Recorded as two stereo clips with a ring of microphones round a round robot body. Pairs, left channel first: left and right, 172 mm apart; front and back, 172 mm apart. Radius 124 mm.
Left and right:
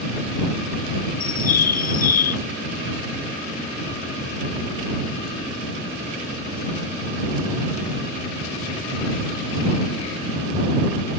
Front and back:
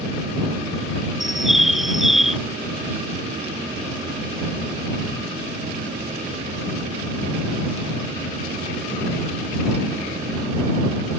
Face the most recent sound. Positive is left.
turn(degrees=90)